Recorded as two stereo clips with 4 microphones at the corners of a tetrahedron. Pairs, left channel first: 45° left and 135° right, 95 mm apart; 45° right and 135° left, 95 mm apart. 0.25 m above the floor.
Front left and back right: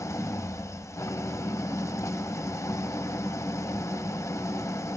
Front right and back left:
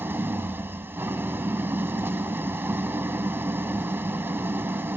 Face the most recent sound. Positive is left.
turn(degrees=80)